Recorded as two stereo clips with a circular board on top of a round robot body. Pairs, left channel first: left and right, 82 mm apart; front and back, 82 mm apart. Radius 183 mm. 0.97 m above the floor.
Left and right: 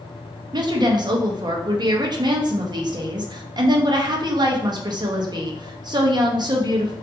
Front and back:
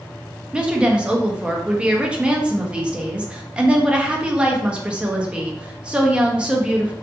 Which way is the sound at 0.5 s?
105° right.